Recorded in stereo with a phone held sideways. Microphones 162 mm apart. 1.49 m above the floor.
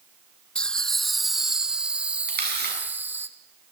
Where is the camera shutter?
75° right (ahead or behind), 9.5 m.